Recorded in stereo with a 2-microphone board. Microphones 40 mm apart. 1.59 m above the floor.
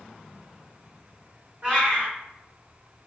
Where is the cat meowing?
30° right (ahead or behind), 1.9 m.